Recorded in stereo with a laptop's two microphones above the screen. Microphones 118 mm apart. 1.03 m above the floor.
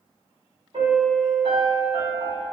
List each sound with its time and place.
0.7 s a piano: 55° right (ahead or behind), 1.6 m